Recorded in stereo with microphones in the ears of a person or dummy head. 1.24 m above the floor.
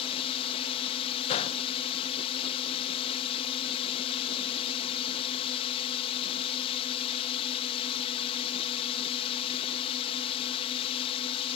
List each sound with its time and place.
0.0 s a drone: 35° left (ahead or behind)
1.3 s a gunshot: 35° left (ahead or behind)